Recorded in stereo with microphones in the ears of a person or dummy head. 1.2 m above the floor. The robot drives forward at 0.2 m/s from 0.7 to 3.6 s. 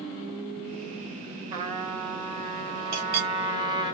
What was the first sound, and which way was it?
A trumpet, 45° right (ahead or behind).